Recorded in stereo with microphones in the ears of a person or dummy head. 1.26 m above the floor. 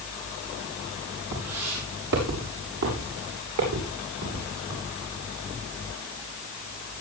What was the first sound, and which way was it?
Footsteps, 75° right (ahead or behind).